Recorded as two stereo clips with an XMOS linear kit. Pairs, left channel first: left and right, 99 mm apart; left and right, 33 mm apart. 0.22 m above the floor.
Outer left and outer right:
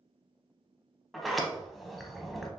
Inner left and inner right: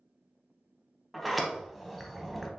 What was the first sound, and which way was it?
A sliding door, centre (ahead or behind).